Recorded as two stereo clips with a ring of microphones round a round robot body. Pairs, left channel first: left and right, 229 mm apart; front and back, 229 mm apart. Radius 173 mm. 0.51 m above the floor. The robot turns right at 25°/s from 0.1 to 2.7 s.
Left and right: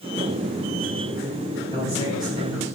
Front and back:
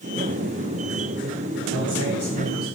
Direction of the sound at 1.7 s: 165° left.